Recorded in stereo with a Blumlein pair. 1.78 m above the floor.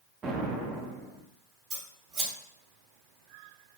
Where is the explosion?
25° right, 0.6 m.